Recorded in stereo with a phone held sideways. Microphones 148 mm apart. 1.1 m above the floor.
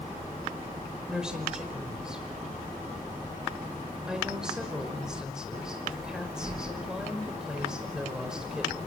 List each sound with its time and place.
1.1 s a woman speaking: 5° right (ahead or behind), 5 m